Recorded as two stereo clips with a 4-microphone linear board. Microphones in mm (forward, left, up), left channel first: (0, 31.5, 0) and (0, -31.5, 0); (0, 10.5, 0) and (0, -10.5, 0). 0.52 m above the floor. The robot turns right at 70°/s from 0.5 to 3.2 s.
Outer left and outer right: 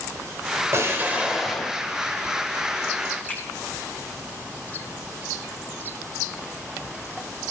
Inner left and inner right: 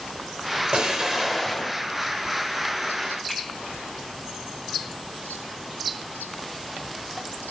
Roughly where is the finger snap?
Left.